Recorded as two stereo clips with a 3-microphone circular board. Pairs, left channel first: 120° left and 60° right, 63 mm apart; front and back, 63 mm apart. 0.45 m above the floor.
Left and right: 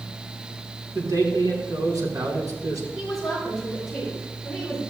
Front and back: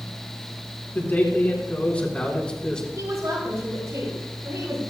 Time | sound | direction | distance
0.9 | a man speaking | 60° right | 4 m
2.9 | a woman speaking | 145° right | 7 m